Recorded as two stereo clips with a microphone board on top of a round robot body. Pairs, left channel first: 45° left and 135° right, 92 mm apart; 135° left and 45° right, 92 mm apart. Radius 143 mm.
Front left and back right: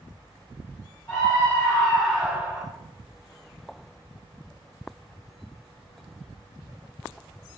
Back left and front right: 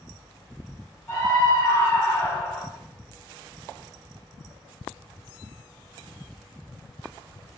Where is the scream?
100° left, 1.4 m; by 2.7 s 155° right, 1.2 m.